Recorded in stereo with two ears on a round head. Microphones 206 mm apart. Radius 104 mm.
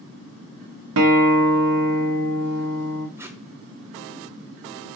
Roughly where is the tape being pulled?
Centre.